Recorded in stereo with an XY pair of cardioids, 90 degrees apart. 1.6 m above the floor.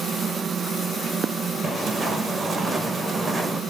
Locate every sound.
0.0 s a machine running: 55° right, 1.5 m
1.6 s footsteps: 20° right, 5.5 m